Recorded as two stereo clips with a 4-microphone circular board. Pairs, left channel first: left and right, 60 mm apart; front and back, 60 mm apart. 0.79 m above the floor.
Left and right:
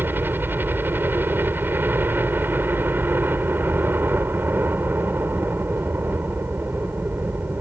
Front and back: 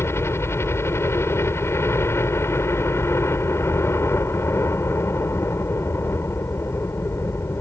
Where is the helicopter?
40° right.